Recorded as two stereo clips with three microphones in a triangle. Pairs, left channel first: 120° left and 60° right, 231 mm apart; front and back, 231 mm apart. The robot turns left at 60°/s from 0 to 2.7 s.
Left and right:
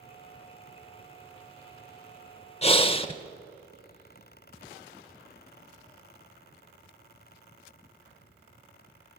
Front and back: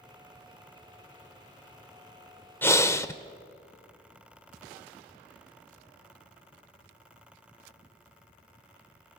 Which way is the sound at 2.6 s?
75° left.